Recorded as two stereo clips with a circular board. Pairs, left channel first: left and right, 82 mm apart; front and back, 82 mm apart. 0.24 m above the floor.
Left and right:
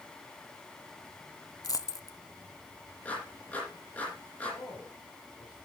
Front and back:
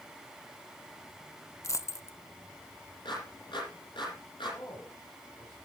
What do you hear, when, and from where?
1.6 s a dropped coin: 50° left, 0.5 m
3.0 s a clap: 20° left, 7.5 m
4.5 s a man speaking: 55° left, 6.5 m